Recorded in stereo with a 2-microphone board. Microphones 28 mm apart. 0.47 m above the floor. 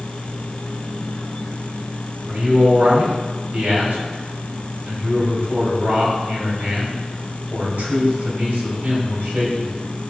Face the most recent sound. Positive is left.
turn(degrees=-65)  # may be behind; listen again after turning